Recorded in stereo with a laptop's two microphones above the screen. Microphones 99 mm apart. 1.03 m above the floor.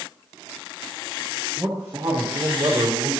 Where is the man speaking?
25° right (ahead or behind), 0.9 m; by 3.1 s 50° right (ahead or behind), 1.6 m.